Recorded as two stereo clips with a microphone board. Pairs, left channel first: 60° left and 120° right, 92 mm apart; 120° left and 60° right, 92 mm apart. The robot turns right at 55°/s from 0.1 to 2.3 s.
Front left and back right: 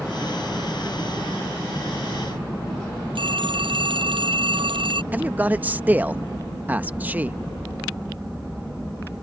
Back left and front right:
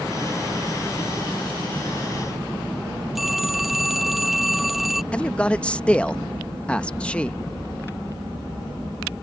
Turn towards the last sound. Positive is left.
turn(degrees=-175)